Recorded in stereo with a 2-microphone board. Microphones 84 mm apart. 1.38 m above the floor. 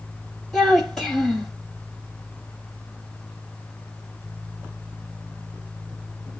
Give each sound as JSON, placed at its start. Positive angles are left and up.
{"t": 0.5, "sound": "a child speaking", "side_deg": 10, "distance_m": 1.7}